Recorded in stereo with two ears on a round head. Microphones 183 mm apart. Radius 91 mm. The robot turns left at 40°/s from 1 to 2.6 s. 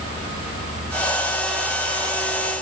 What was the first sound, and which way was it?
Only background noise.